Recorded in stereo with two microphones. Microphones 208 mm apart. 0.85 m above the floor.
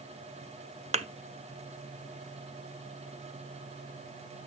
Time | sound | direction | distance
0.9 | a thud | 30° right (ahead or behind) | 0.6 m